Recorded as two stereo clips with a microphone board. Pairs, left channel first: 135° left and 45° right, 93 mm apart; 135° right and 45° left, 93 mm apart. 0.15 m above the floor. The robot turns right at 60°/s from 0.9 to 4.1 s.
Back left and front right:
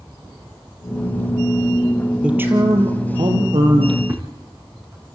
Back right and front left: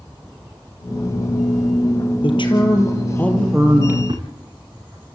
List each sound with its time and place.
2.2 s a man speaking: 125° right, 3.5 m; by 4.0 s 15° right, 3.5 m
4.1 s a thud: 15° left, 4 m